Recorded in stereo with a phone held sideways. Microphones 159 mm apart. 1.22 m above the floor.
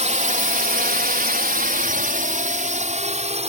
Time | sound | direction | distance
0.0 | a drone | 50° right (ahead or behind) | ?